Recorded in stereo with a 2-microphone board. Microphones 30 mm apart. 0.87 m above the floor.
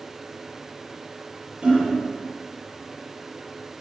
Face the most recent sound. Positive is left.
turn(degrees=-35)  # may be behind; listen again after turning